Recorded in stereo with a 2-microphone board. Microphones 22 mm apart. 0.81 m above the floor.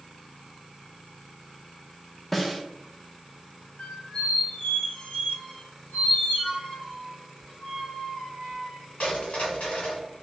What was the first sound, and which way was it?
A snare drum, 5° left (ahead or behind).